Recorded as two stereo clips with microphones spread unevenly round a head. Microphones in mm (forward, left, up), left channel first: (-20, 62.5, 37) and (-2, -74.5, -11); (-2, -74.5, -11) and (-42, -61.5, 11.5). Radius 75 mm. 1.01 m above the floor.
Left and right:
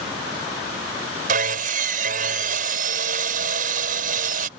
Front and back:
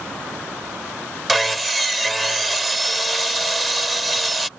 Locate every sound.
1.3 s sawing: 115° right